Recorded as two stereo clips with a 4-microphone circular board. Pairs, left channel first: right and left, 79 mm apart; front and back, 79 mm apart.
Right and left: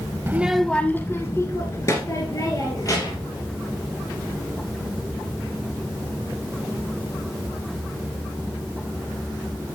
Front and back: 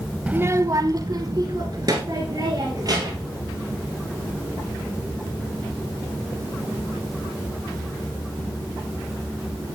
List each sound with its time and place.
0.3 s a child speaking: 120° left, 0.6 m; by 3.3 s 135° right, 4 m